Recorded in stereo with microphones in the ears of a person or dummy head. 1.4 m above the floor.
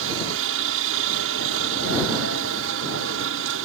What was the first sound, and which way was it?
A helicopter, 70° right (ahead or behind).